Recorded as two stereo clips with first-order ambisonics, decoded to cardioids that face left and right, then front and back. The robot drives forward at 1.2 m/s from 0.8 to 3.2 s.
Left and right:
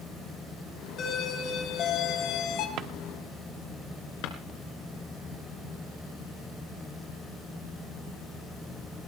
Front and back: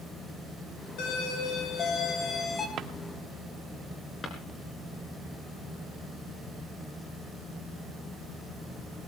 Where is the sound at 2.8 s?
130° right, 1.0 m; by 2.9 s 135° right, 1.2 m.